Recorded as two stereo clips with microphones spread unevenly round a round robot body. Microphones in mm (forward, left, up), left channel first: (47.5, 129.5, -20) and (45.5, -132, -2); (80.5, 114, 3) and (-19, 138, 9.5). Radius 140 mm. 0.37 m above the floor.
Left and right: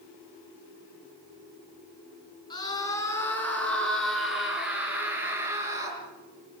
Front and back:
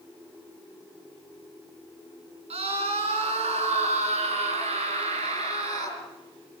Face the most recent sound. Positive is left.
turn(degrees=-170)